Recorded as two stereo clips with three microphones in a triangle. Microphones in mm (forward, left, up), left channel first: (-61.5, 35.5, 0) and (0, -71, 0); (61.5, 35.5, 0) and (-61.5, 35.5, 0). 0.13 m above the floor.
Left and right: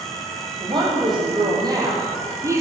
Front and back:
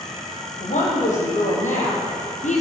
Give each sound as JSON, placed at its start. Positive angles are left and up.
{"t": 0.6, "sound": "a woman speaking", "azimuth_deg": -10, "distance_m": 5.5}